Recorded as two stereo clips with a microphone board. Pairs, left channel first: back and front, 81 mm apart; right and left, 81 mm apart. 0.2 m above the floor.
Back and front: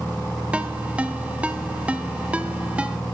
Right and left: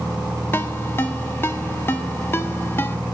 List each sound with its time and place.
0.5 s a ringtone: 60° right, 0.6 m